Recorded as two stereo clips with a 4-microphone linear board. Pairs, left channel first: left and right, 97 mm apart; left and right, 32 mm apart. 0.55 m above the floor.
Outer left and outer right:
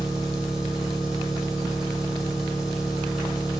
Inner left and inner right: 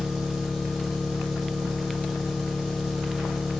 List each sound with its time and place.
0.0 s an engine running: 5° right (ahead or behind), 2.5 m